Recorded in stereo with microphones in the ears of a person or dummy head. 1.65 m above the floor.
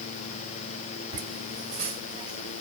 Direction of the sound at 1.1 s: 35° right (ahead or behind).